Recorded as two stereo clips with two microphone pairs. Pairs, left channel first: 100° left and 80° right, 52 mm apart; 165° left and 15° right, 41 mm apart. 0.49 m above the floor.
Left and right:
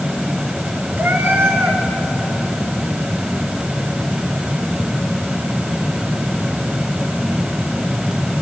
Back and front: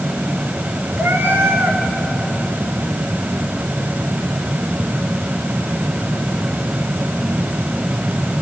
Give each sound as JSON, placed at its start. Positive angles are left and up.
{"t": 1.0, "sound": "a cat meowing", "azimuth_deg": -30, "distance_m": 3.0}